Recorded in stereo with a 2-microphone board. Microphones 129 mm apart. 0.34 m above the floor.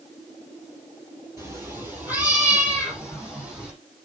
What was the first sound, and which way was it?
A cat meowing, 20° right (ahead or behind).